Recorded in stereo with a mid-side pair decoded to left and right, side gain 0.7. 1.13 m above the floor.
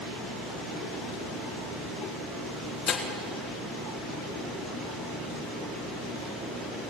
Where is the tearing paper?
40° left, 3 m.